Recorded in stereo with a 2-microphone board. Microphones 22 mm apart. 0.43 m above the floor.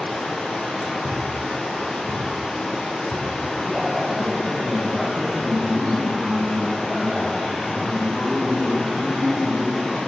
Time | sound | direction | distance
0.0 | running water | 75° left (ahead or behind) | 1.9 m
1.0 | a thud | 70° right (ahead or behind) | 1.2 m
3.6 | a man speaking | centre (ahead or behind) | 2 m